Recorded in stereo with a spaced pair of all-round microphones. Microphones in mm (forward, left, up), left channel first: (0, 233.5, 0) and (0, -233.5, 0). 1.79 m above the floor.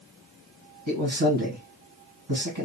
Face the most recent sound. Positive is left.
turn(degrees=-70)  # may be behind; listen again after turning